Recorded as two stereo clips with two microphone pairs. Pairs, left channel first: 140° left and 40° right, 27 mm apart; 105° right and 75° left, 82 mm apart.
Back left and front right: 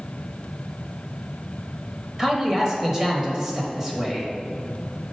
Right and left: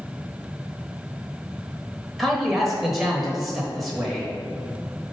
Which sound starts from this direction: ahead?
A man speaking, at 2.2 s.